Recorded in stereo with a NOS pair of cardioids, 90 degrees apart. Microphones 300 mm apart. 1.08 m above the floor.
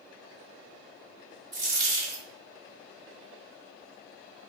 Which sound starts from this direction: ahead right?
A dropped coin, at 1.5 s.